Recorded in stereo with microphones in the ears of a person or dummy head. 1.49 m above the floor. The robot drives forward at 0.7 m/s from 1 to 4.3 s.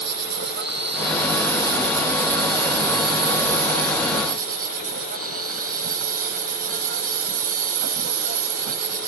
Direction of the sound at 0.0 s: 70° right (ahead or behind).